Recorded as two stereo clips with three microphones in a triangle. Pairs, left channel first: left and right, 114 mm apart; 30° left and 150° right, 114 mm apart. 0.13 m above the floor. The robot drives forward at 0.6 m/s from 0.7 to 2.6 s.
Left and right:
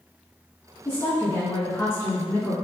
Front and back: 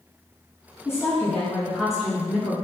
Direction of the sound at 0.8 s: 55° left.